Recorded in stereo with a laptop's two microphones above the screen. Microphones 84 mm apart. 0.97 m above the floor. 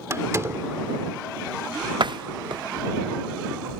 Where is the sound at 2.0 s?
65° right (ahead or behind).